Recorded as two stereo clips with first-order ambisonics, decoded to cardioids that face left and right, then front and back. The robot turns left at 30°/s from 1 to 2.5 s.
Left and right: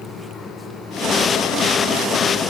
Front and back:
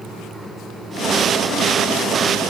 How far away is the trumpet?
I don't hear a trumpet.